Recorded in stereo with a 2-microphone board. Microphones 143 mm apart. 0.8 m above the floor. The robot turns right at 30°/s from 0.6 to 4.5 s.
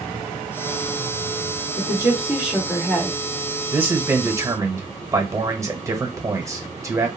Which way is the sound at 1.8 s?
25° right.